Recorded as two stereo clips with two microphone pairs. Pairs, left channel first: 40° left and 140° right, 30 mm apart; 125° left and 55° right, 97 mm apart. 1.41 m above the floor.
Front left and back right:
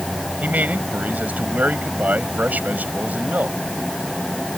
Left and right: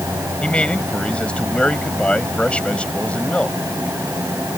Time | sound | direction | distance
0.4 | a man speaking | 160° right | ?